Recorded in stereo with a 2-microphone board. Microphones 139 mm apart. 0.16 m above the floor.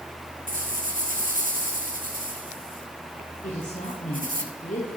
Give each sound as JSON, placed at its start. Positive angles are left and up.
{"t": 0.5, "sound": "a rattle", "side_deg": -85, "distance_m": 2.5}
{"t": 3.4, "sound": "a woman speaking", "side_deg": 65, "distance_m": 5.0}